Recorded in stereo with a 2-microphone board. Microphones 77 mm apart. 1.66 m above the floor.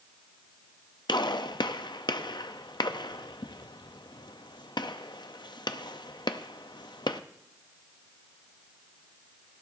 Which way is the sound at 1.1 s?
70° left (ahead or behind).